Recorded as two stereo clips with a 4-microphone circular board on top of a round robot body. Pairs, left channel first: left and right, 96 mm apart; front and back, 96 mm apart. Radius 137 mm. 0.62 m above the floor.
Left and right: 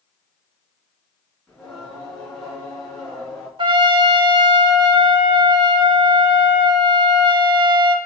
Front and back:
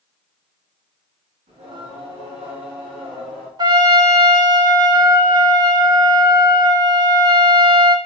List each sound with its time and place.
1.5 s singing: 175° left, 4 m
3.6 s a trumpet: 130° right, 0.5 m